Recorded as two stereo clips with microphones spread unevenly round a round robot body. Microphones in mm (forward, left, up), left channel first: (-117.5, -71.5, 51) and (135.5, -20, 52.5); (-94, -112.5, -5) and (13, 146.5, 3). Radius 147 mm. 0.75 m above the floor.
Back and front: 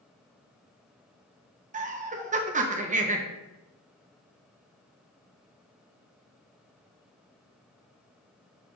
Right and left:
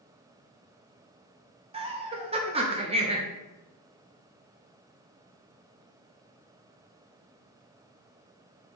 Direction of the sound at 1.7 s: 20° left.